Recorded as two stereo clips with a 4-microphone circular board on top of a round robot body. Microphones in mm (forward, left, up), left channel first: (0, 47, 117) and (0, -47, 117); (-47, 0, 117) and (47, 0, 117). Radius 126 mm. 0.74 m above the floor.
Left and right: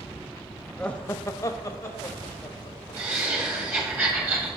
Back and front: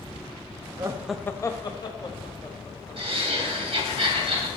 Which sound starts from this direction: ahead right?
Laughter, at 3.0 s.